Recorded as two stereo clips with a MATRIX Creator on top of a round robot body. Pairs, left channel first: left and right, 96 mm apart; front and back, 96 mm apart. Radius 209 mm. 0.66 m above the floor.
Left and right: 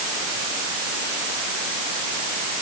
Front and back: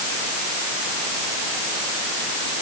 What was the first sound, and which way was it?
Only background noise.